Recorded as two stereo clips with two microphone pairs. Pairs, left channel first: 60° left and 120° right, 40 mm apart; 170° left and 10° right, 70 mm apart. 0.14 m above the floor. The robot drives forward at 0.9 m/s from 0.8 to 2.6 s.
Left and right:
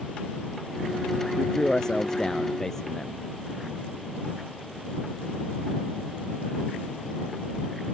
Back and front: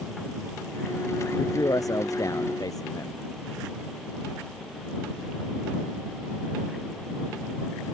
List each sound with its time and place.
1.4 s a man speaking: 130° left; by 3.2 s 135° left